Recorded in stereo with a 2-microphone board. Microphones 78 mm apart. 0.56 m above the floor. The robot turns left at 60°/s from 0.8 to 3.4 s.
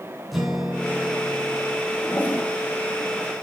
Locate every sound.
0.3 s a guitar: straight behind, 3 m; by 1.8 s 125° left, 3 m
2.0 s a toilet flushing: 35° left (ahead or behind), 1.7 m; by 2.5 s 15° left (ahead or behind), 1.7 m